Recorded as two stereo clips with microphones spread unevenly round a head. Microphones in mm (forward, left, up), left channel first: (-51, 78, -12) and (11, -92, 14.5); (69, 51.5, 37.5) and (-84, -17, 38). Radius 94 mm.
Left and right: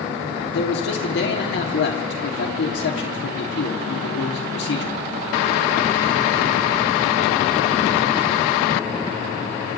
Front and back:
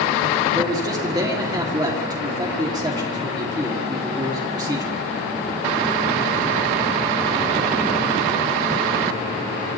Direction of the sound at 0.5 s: 135° left.